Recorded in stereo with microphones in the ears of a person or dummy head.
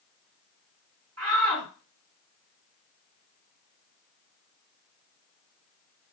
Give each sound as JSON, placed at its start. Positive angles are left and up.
{"t": 1.2, "sound": "a shout", "side_deg": -75, "distance_m": 2.5}